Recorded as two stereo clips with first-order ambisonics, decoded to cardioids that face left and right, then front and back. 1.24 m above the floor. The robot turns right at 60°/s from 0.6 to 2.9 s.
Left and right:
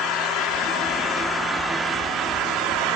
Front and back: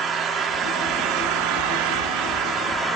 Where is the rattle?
I don't hear a rattle.